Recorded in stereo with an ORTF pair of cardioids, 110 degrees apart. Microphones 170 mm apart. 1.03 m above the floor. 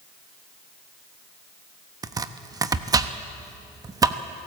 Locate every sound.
2.0 s chopping: 20° right, 1.1 m